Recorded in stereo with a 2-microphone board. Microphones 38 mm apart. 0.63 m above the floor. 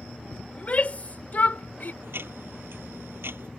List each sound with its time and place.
0.5 s a shout: 35° left (ahead or behind); by 1.9 s 50° left (ahead or behind)
2.0 s ticking: 75° right (ahead or behind)